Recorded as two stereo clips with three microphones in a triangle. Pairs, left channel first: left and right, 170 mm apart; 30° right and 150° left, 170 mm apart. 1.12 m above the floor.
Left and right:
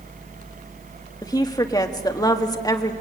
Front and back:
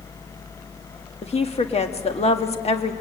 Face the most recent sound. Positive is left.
turn(degrees=20)